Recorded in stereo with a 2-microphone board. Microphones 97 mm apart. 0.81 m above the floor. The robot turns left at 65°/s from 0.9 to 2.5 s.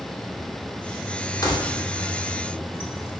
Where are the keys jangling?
40° left (ahead or behind), 1.1 m; by 3.1 s 70° left (ahead or behind), 1.1 m.